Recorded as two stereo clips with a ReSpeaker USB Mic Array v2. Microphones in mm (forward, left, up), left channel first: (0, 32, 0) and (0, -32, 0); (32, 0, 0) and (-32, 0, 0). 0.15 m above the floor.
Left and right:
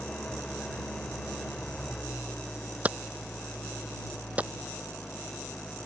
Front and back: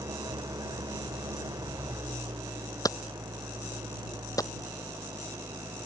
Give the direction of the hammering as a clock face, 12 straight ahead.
1 o'clock.